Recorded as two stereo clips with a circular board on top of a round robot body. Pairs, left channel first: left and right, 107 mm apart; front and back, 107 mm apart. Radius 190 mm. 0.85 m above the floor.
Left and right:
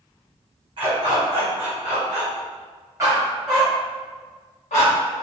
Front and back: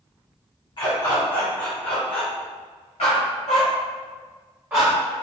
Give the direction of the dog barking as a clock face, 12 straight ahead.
1 o'clock.